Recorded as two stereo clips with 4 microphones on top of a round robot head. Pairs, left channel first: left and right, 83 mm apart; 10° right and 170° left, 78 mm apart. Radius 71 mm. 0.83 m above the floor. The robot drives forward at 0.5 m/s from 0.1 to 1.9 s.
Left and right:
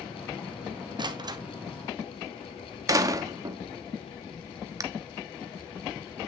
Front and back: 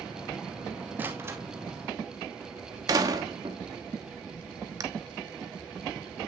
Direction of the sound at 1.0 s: 120° right.